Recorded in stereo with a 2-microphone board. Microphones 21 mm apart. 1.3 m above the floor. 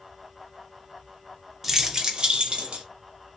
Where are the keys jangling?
10° right (ahead or behind), 0.6 m; by 2.8 s 60° right (ahead or behind), 1.0 m.